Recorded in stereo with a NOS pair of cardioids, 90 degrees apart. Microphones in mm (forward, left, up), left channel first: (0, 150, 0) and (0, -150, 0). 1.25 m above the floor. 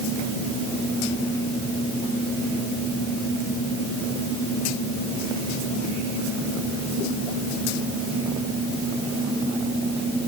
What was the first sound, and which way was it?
Only background noise.